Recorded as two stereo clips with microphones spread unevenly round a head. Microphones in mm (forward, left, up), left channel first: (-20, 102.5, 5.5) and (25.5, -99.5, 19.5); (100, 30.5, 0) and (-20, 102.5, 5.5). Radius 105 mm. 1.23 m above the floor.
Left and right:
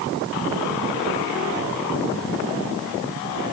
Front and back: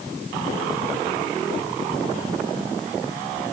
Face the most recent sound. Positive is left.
No sound to turn to.